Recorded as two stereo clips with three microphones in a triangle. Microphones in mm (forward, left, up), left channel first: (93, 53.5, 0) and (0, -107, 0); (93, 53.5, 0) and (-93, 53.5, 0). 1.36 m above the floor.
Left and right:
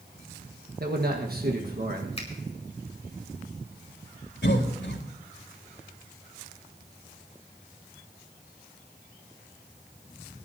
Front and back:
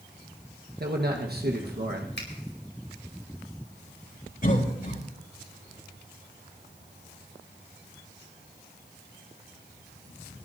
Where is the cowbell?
No cowbell in this recording.